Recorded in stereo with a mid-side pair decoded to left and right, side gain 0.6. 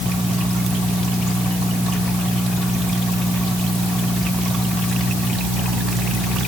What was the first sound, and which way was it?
Only background noise.